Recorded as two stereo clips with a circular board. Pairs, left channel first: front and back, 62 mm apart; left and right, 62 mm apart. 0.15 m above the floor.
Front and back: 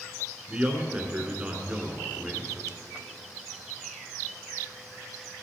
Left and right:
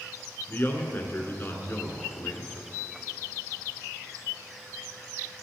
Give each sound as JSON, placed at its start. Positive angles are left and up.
{"t": 0.5, "sound": "a man speaking", "azimuth_deg": 120, "distance_m": 1.7}